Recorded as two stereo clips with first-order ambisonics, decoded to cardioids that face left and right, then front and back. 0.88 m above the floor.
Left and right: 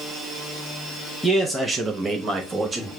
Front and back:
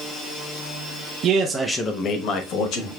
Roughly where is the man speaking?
Behind.